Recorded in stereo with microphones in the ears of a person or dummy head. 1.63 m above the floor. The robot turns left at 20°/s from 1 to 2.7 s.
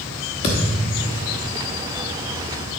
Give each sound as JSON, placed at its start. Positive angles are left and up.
{"t": 0.4, "sound": "a thud", "side_deg": 25, "distance_m": 1.1}